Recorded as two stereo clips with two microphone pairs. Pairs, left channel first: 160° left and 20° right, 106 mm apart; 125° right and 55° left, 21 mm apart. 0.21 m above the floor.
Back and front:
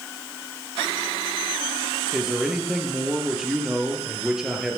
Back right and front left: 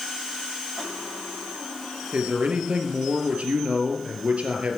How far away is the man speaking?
About 4 m.